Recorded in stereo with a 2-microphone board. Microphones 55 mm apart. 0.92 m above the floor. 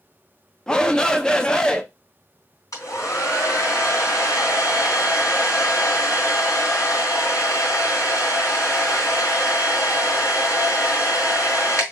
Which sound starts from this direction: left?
A hair dryer, at 2.7 s.